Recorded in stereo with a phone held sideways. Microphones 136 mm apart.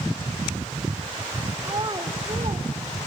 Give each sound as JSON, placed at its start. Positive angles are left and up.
{"t": 1.6, "sound": "a child speaking", "side_deg": -30, "distance_m": 1.0}